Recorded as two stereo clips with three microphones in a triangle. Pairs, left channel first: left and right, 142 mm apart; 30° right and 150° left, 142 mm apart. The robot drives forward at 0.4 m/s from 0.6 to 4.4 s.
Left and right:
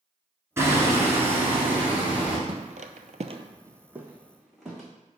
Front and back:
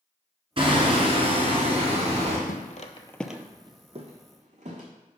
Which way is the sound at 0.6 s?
160° right.